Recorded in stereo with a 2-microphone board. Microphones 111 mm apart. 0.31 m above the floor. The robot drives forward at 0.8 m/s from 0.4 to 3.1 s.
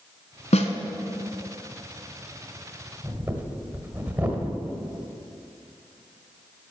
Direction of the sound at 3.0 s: 15° right (ahead or behind).